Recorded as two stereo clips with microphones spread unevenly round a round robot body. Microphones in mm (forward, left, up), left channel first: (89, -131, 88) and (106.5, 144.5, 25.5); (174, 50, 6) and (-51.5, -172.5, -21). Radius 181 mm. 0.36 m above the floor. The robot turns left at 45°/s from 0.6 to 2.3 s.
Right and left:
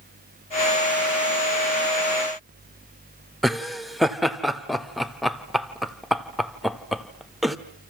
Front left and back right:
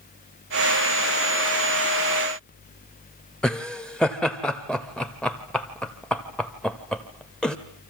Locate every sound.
3.4 s laughter: 140° left, 1.0 m